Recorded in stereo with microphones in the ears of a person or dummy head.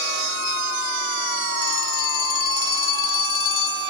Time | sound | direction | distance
1.6 | a phone ringing | 60° left (ahead or behind) | 2 m